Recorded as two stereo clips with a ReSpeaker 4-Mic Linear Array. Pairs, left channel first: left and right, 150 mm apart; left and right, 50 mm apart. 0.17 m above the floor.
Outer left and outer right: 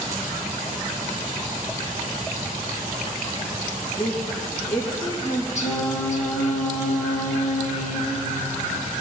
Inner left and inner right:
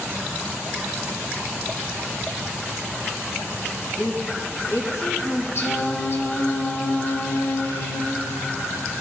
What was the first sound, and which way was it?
A woman speaking, 70° left (ahead or behind).